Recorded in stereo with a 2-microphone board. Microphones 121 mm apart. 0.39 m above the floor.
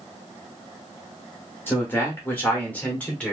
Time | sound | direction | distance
1.7 | a man speaking | 20° left (ahead or behind) | 1.5 m